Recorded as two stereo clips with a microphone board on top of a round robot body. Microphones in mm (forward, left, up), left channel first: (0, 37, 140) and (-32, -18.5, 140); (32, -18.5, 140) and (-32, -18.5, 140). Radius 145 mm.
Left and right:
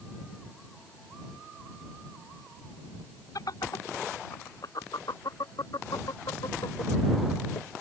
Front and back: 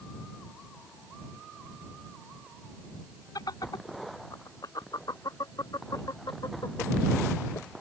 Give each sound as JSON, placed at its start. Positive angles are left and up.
{"t": 3.4, "sound": "laughter", "azimuth_deg": 25}